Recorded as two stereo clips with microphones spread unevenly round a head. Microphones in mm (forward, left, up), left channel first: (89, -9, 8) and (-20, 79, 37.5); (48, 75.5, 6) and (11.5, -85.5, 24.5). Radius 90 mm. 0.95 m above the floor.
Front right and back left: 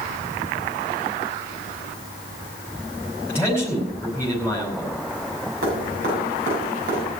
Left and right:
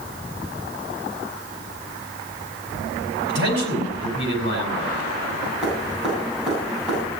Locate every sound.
3.3 s a man speaking: 140° right, 5 m
5.6 s dripping: 170° left, 8 m